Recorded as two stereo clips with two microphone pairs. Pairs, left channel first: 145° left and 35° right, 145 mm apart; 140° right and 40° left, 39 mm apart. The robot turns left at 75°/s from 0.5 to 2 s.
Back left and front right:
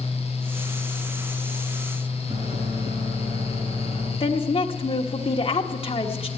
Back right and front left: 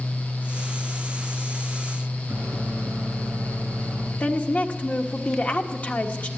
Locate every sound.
2.3 s a microwave: 5° left, 6.5 m
4.2 s a woman speaking: straight behind, 1.4 m